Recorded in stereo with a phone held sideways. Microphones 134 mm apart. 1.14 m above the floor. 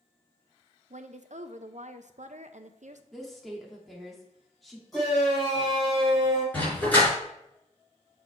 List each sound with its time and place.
0.9 s a woman speaking: 70° right (ahead or behind), 0.7 m
3.1 s a woman speaking: centre (ahead or behind), 2 m
4.9 s a shout: centre (ahead or behind), 4 m
6.5 s a dog barking: 15° left (ahead or behind), 4.5 m